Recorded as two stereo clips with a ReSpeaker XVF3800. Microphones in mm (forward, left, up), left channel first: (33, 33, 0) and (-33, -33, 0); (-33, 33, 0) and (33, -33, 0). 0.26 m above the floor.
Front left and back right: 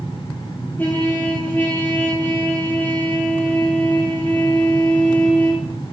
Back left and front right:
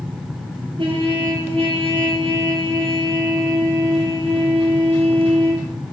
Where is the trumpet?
25° right, 3.5 m.